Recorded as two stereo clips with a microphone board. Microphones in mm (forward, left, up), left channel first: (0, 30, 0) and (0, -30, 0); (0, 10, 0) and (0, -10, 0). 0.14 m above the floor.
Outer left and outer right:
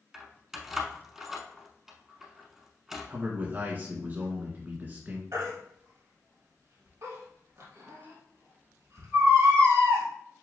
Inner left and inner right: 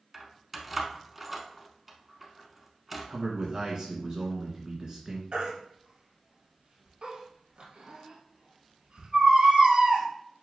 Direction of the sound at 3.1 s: 35° right (ahead or behind).